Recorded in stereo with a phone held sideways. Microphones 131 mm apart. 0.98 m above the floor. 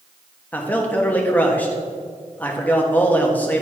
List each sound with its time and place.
0.5 s a man speaking: 10° left (ahead or behind), 1.3 m